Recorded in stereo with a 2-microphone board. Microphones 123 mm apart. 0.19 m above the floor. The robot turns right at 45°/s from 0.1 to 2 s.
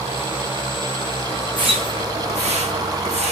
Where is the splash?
40° right (ahead or behind), 4 m; by 3.3 s 60° right (ahead or behind), 4 m.